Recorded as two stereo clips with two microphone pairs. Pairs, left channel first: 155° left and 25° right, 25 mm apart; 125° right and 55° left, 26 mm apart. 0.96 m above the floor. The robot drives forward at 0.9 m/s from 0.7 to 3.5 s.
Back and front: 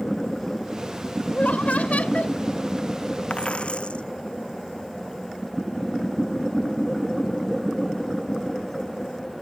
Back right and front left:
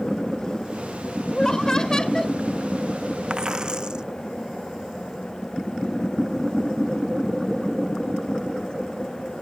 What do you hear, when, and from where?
1.3 s laughter: 170° left; by 2.4 s 175° left
3.3 s a dropped coin: 115° left